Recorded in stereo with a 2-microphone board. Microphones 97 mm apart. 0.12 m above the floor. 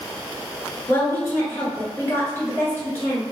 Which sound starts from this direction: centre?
A woman speaking, at 0.9 s.